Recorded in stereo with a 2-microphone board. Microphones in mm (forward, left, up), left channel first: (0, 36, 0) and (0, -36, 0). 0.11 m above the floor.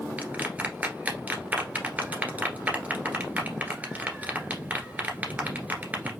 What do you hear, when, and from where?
0.2 s a clap: 20° right (ahead or behind), 1.7 m